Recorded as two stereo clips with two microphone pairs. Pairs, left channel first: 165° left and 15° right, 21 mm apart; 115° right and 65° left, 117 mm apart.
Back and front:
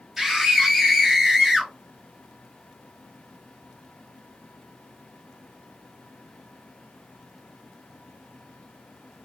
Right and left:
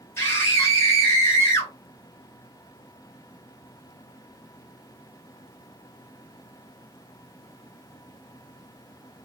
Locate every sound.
0.2 s a scream: 90° right, 1.0 m